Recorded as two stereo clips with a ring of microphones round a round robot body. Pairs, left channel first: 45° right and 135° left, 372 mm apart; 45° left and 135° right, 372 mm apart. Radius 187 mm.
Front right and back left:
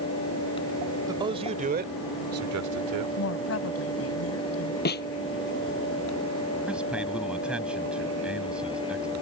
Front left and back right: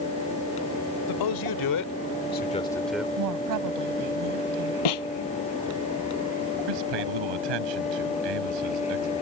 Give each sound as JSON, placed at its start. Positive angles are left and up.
{"t": 1.1, "sound": "a man speaking", "azimuth_deg": 55}
{"t": 3.2, "sound": "a woman speaking", "azimuth_deg": -95}
{"t": 4.8, "sound": "a snare drum", "azimuth_deg": 20}
{"t": 6.7, "sound": "a man speaking", "azimuth_deg": -135}